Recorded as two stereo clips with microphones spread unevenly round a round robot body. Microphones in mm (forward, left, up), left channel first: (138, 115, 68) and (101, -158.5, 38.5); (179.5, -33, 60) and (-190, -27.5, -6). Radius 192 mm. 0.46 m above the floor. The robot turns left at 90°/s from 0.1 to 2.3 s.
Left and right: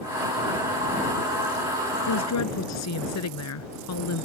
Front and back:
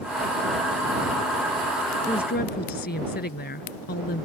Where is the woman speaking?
85° left; by 4.3 s 65° left.